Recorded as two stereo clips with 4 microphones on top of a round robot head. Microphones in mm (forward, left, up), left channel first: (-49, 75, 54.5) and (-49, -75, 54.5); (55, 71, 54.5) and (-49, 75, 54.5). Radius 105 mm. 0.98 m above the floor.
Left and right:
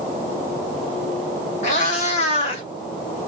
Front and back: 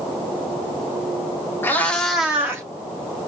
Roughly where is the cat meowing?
Ahead left.